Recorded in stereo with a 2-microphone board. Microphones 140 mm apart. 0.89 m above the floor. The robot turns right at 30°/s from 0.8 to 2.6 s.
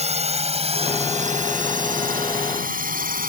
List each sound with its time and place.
0.0 s a drone: 50° right (ahead or behind); by 3.3 s 85° right